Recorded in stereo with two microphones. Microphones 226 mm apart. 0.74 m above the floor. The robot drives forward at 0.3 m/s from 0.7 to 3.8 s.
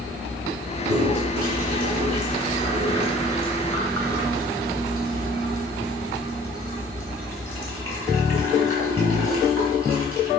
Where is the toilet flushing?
70° right (ahead or behind), 3 m; by 10.3 s 85° right, 2.5 m.